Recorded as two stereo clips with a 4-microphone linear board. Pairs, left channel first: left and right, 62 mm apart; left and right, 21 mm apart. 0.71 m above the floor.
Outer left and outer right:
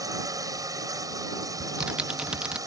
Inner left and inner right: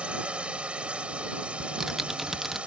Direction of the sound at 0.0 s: 70° right (ahead or behind).